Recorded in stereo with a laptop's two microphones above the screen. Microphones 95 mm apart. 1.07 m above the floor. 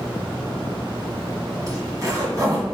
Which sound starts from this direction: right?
A zipper, at 1.7 s.